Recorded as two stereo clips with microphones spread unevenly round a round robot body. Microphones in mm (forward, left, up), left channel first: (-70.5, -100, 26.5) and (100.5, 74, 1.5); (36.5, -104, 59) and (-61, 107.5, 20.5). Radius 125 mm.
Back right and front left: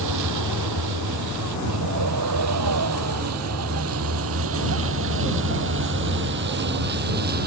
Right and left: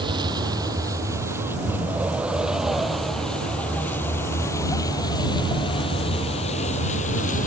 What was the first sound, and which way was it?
A vehicle, 40° left.